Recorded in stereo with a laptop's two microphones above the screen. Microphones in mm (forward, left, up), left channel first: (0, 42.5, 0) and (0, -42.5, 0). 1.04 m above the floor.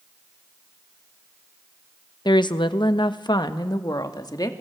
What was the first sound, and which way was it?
A woman speaking, 60° left (ahead or behind).